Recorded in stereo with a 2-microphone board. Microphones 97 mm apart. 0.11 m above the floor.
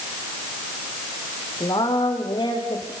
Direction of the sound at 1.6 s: 45° left (ahead or behind).